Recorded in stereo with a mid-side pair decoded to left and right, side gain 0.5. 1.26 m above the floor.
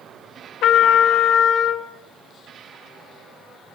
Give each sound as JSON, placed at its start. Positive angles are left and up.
{"t": 0.6, "sound": "a trumpet", "azimuth_deg": 65, "distance_m": 0.9}